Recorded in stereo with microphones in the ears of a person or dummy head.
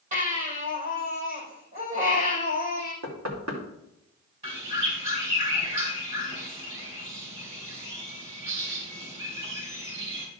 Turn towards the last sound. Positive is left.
turn(degrees=-35)  # may be behind; listen again after turning